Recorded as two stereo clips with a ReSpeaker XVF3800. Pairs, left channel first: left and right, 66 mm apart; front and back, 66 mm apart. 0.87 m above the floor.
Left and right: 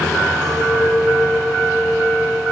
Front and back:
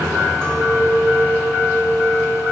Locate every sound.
0.4 s a clink: 80° right, 5 m